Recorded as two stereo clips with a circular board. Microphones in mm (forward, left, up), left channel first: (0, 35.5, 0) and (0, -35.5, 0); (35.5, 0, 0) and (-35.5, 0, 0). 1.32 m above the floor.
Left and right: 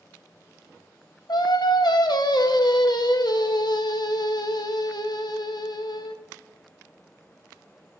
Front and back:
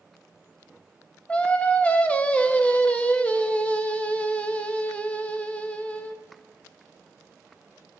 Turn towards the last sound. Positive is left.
turn(degrees=70)